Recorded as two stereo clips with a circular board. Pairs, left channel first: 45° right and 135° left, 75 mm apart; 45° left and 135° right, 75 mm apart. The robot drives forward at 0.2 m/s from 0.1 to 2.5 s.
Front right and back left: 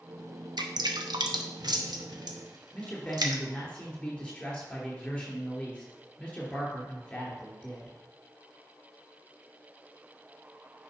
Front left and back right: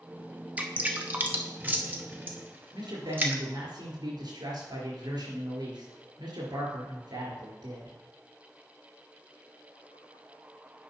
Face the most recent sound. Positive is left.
turn(degrees=-125)